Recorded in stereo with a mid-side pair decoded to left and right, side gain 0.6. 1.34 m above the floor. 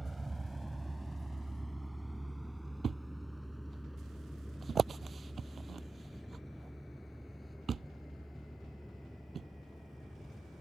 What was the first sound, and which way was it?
A vehicle, 10° right.